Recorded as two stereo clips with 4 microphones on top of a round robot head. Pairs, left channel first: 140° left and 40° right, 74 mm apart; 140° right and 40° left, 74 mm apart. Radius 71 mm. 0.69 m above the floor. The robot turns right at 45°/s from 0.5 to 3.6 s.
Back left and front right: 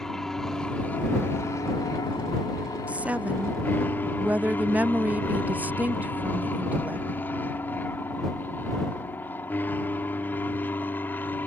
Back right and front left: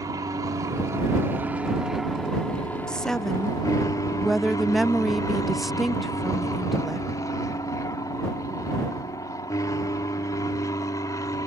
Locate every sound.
0.0 s an aircraft: 60° left; by 11.5 s 160° right
2.9 s a woman speaking: 80° right; by 7.1 s 45° right